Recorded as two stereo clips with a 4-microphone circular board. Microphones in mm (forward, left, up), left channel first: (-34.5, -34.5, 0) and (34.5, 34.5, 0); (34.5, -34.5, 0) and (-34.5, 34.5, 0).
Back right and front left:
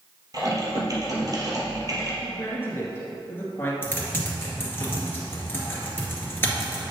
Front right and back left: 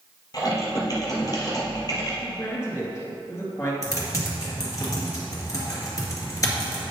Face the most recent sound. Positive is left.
turn(degrees=-80)